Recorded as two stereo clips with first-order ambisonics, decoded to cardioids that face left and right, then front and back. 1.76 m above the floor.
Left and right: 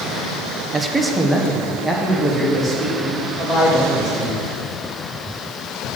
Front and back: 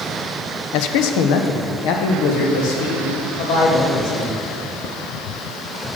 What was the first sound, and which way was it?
A man speaking, 10° right.